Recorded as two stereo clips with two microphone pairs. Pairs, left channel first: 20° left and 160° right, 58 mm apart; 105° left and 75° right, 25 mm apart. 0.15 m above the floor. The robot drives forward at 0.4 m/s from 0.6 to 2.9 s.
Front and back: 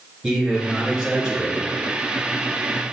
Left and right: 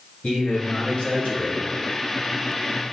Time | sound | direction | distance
0.2 | a man speaking | 115° left | 3 m